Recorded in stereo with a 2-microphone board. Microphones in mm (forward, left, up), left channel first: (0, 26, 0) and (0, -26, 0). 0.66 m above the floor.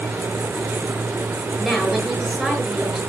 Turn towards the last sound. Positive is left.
turn(degrees=-5)  # may be behind; listen again after turning